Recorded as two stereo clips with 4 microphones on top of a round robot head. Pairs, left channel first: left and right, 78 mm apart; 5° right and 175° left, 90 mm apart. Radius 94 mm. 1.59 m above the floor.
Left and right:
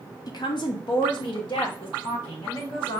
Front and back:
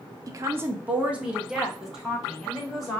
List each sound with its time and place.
0.3 s a woman speaking: 125° left, 0.7 m; by 3.0 s 85° left, 2.5 m